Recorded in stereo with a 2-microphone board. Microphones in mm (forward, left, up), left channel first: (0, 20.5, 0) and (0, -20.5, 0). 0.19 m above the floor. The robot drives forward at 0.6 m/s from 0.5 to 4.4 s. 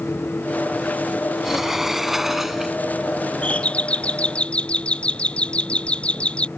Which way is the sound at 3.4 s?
35° left (ahead or behind).